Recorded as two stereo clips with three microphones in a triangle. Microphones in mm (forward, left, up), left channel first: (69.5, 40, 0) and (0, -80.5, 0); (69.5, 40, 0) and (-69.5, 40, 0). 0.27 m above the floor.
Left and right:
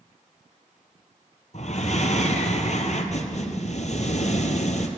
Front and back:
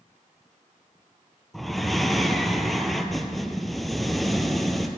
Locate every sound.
1.5 s breathing: 90° left, 1.1 m